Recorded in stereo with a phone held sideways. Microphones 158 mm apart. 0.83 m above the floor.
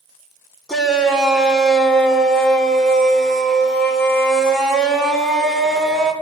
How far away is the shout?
About 2.5 m.